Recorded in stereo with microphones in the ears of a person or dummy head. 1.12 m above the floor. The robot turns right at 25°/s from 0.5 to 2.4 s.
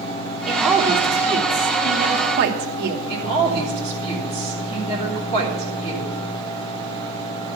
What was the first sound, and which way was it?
A woman speaking, 175° right.